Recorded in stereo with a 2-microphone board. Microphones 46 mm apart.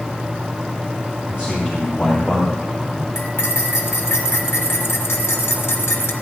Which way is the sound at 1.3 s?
25° right (ahead or behind).